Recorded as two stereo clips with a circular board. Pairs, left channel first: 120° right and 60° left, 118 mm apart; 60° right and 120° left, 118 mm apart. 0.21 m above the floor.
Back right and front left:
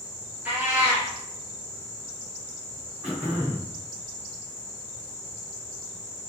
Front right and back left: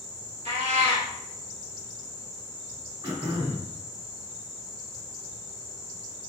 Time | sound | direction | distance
0.5 | a cat meowing | 135° left | 1.4 m
3.0 | throat clearing | 135° left | 1.5 m